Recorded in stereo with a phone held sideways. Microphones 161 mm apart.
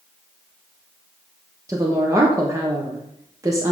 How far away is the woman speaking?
About 1.1 m.